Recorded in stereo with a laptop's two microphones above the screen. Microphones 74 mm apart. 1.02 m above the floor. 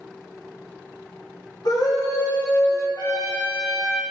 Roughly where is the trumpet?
Left.